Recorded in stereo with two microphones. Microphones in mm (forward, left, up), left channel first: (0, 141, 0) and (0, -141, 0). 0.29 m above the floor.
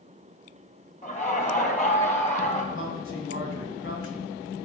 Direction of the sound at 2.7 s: 50° left (ahead or behind).